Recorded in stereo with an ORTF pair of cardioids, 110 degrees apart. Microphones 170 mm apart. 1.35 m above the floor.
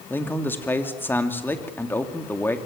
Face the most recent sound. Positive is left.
turn(degrees=10)